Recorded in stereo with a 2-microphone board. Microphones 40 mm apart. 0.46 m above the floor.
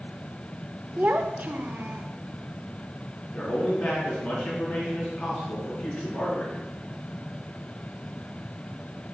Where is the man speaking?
20° left (ahead or behind), 4.5 m.